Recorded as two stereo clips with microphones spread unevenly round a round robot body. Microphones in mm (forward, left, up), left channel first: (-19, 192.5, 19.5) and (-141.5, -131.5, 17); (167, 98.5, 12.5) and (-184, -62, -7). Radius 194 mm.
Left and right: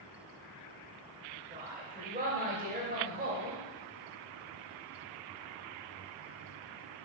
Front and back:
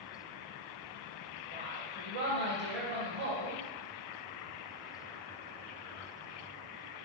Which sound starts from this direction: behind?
A woman speaking, at 1.5 s.